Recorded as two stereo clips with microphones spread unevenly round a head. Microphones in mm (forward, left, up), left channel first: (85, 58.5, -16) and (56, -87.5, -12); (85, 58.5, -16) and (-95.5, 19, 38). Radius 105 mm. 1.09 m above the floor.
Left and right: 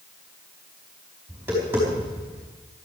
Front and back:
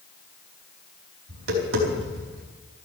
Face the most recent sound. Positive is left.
turn(degrees=180)